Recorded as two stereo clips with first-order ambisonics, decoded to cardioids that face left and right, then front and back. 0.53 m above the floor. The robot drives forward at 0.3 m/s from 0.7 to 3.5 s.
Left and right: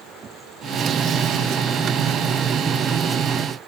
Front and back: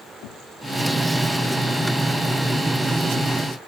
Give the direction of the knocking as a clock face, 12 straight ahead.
1 o'clock.